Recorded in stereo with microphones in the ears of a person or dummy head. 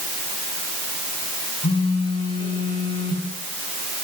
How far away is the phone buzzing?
About 7 m.